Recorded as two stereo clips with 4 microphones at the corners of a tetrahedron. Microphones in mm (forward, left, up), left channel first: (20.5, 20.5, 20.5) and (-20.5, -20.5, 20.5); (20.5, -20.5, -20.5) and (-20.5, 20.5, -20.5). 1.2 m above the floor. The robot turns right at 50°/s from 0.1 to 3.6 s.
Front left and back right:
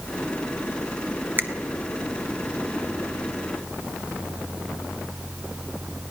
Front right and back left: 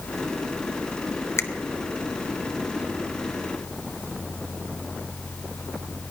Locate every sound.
1.4 s a finger snap: 85° right, 0.6 m; by 1.5 s 80° right, 0.6 m